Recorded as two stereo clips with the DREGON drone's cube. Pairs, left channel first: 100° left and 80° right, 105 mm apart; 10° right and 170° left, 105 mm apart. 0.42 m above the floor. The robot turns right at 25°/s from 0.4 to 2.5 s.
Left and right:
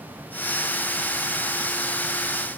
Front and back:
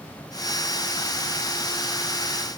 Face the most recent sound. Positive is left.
No sound to turn to.